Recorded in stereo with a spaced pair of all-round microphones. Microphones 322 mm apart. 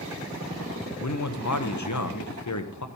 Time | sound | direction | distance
1.0 | a man speaking | 65° left (ahead or behind) | 0.7 m